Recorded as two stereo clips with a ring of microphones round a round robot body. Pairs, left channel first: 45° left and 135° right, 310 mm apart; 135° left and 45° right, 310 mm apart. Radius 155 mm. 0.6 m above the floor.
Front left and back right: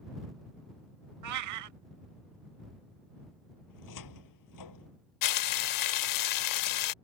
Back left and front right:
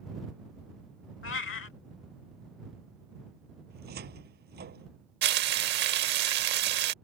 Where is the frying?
15° left.